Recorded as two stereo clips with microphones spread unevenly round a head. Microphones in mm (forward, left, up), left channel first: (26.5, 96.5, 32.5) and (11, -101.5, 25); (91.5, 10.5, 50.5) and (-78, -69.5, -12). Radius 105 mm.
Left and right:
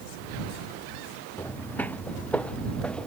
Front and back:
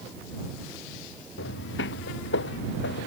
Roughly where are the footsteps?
Ahead.